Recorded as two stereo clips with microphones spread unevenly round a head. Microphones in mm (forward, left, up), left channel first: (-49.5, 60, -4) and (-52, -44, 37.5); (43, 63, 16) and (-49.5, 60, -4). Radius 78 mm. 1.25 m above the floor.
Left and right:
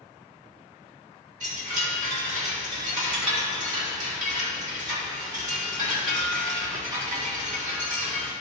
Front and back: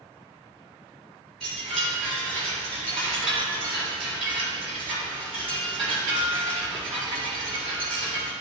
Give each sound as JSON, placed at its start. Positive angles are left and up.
{"t": 1.4, "sound": "a chime", "azimuth_deg": -90, "distance_m": 3.5}